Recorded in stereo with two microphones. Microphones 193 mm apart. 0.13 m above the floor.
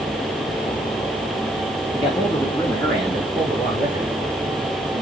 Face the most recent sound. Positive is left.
turn(degrees=-15)  # may be behind; listen again after turning